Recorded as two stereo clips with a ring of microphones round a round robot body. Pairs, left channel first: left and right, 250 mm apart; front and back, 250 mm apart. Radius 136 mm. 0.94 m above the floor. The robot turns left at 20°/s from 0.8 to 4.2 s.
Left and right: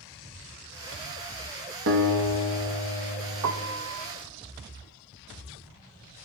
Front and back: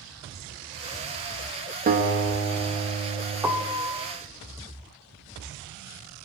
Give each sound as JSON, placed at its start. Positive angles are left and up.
{"t": 1.9, "sound": "a guitar", "azimuth_deg": -125, "distance_m": 1.5}
{"t": 3.4, "sound": "a piano", "azimuth_deg": -100, "distance_m": 0.7}